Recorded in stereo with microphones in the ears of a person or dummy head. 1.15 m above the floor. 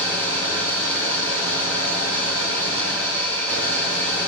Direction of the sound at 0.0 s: 10° left (ahead or behind).